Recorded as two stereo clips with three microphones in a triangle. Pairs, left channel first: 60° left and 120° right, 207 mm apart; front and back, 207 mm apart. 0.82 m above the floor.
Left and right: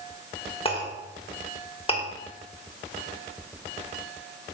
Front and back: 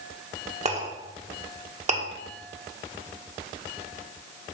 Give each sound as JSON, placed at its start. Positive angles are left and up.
{"t": 0.7, "sound": "a clink", "azimuth_deg": 120, "distance_m": 1.5}